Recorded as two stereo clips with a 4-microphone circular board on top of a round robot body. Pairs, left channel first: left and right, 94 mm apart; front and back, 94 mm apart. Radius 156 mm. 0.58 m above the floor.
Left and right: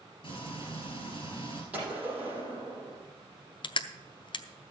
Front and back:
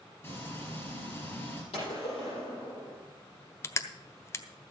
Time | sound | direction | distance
0.2 | frying | 65° left | 5 m
1.7 | a gunshot | 15° right | 6 m
3.6 | crushing | 60° left | 0.7 m